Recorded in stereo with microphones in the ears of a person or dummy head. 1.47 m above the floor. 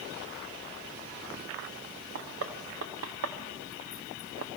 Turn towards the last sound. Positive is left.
turn(degrees=-70)  # may be behind; listen again after turning